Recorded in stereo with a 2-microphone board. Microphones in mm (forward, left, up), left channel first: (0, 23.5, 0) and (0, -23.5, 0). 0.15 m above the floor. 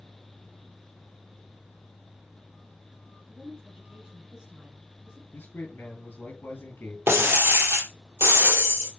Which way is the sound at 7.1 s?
55° right (ahead or behind).